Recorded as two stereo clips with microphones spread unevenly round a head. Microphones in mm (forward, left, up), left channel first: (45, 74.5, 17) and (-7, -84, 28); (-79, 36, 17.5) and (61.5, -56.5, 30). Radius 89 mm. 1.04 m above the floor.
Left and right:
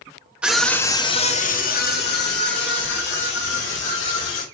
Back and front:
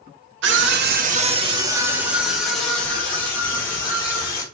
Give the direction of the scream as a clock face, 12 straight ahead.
1 o'clock.